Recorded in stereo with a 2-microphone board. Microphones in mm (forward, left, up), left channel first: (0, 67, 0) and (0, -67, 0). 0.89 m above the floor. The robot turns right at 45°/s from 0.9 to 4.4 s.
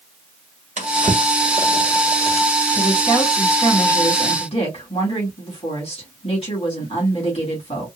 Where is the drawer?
70° right (ahead or behind), 1.6 m; by 2.5 s 40° right (ahead or behind), 1.6 m.